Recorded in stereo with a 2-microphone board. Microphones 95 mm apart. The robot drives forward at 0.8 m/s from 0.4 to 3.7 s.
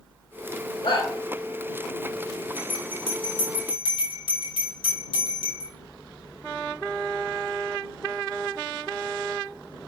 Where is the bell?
75° left (ahead or behind), 5 m; by 5.7 s 65° left (ahead or behind), 5 m.